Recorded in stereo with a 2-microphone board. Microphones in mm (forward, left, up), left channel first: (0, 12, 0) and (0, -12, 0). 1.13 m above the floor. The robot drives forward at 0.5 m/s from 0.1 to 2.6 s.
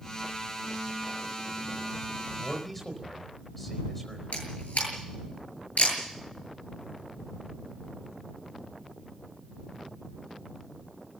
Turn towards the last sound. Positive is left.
turn(degrees=80)